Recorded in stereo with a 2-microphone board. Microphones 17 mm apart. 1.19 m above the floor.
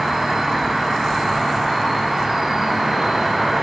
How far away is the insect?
About 1.5 m.